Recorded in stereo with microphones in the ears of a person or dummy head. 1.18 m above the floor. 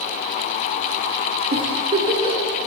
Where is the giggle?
30° right (ahead or behind), 5 m.